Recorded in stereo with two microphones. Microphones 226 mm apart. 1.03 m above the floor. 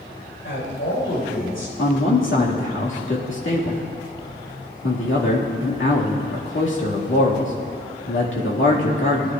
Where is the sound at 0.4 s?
65° left (ahead or behind), 4.5 m.